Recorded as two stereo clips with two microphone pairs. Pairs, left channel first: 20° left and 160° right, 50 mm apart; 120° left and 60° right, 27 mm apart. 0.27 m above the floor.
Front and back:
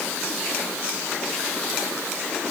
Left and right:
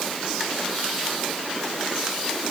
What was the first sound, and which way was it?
Only background noise.